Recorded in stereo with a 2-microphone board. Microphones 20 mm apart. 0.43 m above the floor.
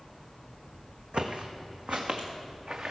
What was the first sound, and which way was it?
Footsteps, 65° right (ahead or behind).